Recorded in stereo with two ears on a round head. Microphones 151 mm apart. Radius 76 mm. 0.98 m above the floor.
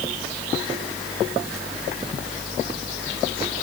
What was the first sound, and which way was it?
Only background noise.